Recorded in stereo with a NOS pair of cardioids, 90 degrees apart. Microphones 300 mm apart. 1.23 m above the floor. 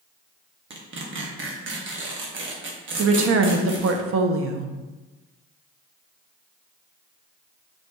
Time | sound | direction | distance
0.7 | tearing paper | 40° right | 1.0 m
3.0 | a woman speaking | 50° right | 0.7 m